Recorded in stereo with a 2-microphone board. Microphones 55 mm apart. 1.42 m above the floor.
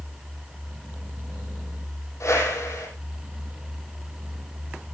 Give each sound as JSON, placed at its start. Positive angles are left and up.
{"t": 2.2, "sound": "a whoosh", "side_deg": 70, "distance_m": 9.5}